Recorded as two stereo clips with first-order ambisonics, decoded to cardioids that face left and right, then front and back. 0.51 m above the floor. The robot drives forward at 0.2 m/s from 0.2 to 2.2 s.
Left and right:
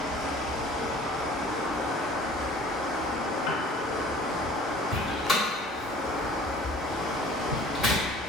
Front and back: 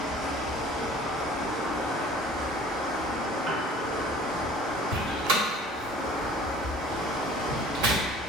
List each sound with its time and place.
0.0 s running water: 130° right, 1.8 m; by 8.3 s 140° right, 2 m
3.5 s a piano: 125° left, 0.8 m
4.9 s a door slam: 175° left, 1.1 m